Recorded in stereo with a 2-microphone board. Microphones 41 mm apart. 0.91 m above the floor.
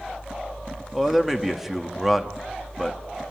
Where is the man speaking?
10° right (ahead or behind), 1.6 m.